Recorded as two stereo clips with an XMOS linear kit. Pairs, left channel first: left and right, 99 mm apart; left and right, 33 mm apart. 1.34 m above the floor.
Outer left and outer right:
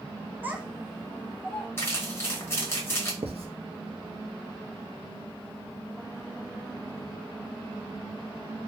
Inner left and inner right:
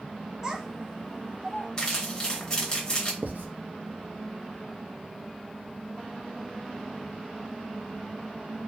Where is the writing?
80° right, 0.5 m.